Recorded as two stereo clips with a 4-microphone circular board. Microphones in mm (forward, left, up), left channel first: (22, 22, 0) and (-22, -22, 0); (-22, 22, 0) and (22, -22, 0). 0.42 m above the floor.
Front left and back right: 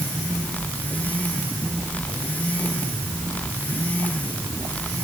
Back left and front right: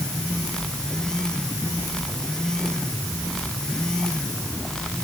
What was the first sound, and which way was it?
Only background noise.